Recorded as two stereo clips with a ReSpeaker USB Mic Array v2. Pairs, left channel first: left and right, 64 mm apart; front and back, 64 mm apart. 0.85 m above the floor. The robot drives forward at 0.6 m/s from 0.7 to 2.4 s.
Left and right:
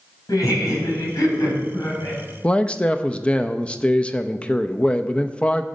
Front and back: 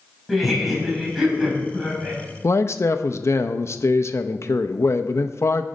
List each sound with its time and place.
0.3 s laughter: 90° left, 4.5 m; by 2.2 s 105° left, 4.5 m
2.4 s a man speaking: 20° left, 0.5 m